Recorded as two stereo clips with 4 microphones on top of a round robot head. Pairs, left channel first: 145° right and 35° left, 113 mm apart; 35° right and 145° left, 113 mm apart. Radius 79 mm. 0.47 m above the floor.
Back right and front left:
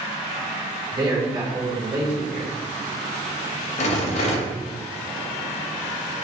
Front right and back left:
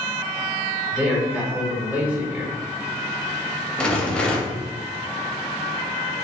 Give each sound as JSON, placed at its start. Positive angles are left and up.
{"t": 0.9, "sound": "a man speaking", "azimuth_deg": 75, "distance_m": 1.5}
{"t": 3.8, "sound": "a rattle", "azimuth_deg": -115, "distance_m": 0.6}